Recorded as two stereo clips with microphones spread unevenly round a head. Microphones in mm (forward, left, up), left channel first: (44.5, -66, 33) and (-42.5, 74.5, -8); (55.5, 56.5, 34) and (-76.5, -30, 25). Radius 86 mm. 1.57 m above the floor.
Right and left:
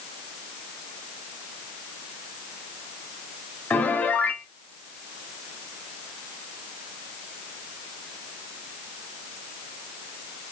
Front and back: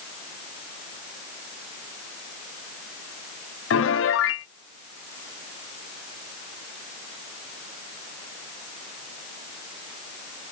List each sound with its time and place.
3.7 s a piano: 25° left, 0.7 m